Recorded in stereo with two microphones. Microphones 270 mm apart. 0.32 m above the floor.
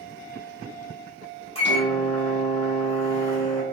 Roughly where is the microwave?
Left.